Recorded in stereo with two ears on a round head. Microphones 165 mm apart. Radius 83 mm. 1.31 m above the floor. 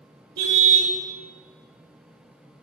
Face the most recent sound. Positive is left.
turn(degrees=-65)  # may be behind; listen again after turning